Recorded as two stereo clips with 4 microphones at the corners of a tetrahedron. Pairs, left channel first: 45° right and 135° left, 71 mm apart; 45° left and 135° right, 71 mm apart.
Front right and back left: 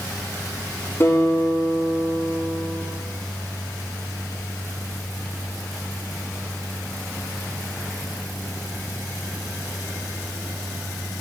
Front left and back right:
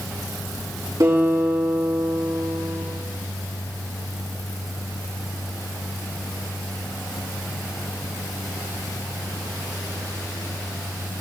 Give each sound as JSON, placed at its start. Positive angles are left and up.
{"t": 1.0, "sound": "a guitar", "azimuth_deg": -95, "distance_m": 6.5}